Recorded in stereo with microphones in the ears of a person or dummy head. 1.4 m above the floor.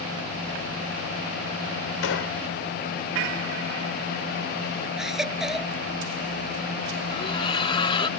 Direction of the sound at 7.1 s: 25° left (ahead or behind).